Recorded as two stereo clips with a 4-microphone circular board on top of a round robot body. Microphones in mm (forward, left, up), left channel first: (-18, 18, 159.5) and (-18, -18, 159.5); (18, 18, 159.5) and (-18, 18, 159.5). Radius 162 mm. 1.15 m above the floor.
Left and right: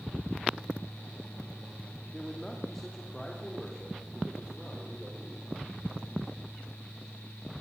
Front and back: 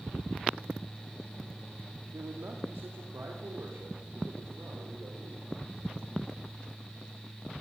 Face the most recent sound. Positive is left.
turn(degrees=175)